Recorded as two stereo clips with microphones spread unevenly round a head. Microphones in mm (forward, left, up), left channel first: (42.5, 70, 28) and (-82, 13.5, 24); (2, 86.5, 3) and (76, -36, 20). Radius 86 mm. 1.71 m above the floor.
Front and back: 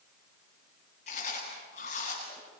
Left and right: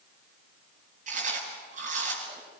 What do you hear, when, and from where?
1.1 s chewing: 30° right, 7.5 m